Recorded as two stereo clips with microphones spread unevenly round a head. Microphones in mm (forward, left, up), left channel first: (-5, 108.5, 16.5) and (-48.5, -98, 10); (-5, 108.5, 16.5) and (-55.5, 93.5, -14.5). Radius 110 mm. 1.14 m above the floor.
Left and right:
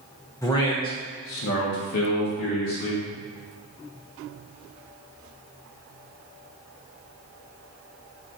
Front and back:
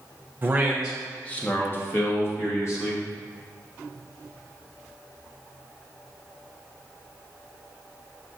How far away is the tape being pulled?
No tape being pulled in this recording.